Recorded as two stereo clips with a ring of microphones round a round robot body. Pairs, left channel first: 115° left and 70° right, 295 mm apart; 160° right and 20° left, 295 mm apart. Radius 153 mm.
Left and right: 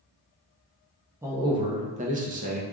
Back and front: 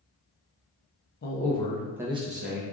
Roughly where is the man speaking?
Behind right.